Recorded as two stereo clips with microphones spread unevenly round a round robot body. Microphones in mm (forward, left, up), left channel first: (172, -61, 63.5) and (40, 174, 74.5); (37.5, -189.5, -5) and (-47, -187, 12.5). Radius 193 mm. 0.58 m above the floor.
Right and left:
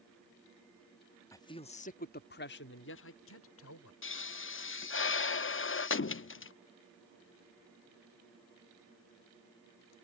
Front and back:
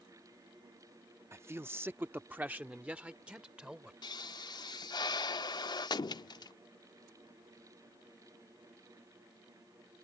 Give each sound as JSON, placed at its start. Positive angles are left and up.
{"t": 1.3, "sound": "a man speaking", "azimuth_deg": -125}
{"t": 4.0, "sound": "a pop", "azimuth_deg": -15}